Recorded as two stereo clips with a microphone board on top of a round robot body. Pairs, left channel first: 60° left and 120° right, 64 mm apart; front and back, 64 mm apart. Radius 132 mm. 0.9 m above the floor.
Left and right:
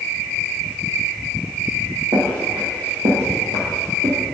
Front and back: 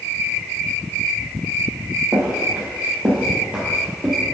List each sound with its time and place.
2.1 s footsteps: 120° right, 2.5 m; by 4.2 s 105° right, 1.3 m